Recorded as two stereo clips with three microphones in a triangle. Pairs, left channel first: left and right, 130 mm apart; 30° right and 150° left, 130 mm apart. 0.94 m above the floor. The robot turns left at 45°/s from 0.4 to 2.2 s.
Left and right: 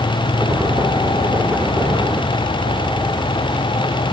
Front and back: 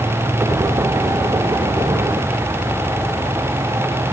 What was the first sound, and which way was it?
Only background noise.